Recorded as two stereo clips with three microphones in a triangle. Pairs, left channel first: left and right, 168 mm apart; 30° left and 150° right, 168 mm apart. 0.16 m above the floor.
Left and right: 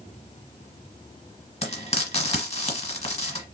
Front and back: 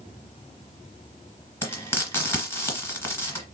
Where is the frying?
100° left, 1.7 m.